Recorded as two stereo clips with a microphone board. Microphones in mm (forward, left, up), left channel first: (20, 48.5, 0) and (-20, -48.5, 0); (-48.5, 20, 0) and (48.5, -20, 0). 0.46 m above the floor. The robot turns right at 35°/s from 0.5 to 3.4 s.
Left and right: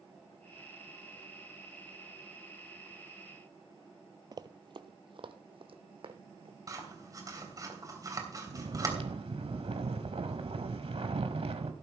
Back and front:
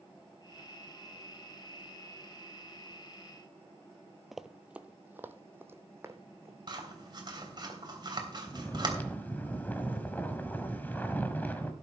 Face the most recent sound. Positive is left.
turn(degrees=-130)